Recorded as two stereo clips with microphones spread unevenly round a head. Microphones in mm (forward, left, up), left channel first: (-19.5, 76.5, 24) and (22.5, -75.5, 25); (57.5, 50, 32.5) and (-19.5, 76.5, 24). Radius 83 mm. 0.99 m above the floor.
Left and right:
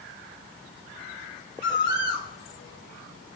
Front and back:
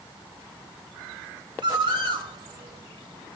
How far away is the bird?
About 1.2 m.